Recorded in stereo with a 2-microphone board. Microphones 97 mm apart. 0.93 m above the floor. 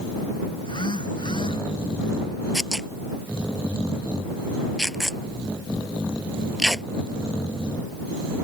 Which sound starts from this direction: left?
A phone buzzing, at 0.6 s.